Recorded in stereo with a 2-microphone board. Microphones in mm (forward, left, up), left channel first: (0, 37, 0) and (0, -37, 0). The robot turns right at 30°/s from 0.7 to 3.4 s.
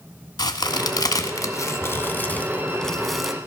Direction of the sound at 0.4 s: 70° left (ahead or behind).